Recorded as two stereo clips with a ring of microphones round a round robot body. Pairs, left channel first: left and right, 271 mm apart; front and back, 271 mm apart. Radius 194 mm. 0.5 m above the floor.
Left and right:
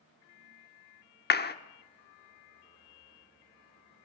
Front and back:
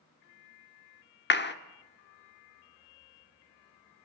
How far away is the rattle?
I don't hear a rattle.